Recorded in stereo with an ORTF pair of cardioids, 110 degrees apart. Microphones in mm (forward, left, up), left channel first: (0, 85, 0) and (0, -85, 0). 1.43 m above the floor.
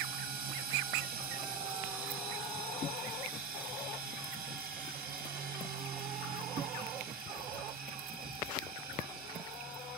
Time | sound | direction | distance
0.0 | a machine running | 65° right | 1.1 m